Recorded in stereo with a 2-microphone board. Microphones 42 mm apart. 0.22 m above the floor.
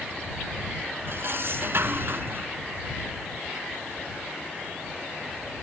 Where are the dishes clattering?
60° right (ahead or behind).